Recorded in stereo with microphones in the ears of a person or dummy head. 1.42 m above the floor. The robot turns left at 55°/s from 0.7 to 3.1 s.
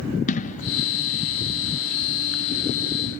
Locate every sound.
0.3 s an explosion: 45° left (ahead or behind); by 0.7 s 40° left (ahead or behind)